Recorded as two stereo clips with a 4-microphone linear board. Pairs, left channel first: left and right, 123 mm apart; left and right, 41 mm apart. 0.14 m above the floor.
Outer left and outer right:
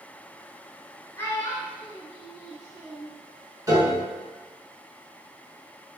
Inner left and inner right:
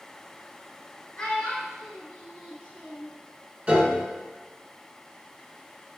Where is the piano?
30° right (ahead or behind), 0.8 m.